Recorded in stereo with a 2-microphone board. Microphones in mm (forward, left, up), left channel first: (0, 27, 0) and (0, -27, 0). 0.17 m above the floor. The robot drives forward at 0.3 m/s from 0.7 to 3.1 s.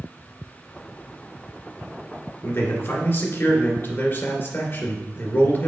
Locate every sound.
2.4 s a man speaking: 50° left (ahead or behind), 2 m; by 5.7 s 45° left (ahead or behind), 2 m